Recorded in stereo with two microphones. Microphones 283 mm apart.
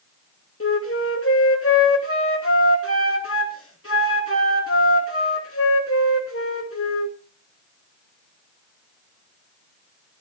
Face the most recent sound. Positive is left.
turn(degrees=50)  # may be behind; listen again after turning